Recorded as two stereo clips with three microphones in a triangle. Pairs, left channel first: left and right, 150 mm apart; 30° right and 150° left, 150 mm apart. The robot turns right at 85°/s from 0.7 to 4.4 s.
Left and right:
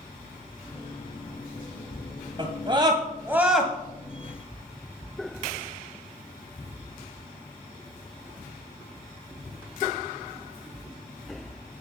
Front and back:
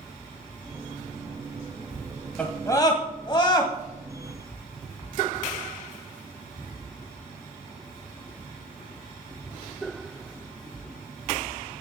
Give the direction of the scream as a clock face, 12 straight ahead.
3 o'clock.